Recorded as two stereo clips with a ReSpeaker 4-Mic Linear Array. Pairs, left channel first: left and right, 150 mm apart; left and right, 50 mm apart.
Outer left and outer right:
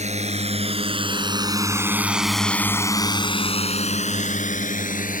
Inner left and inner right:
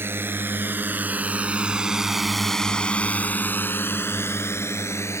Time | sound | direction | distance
0.0 | a drone | 50° right (ahead or behind) | ?